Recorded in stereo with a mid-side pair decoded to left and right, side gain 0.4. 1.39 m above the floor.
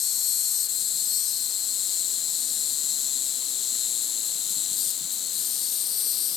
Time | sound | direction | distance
0.0 | an insect | 70° left | ?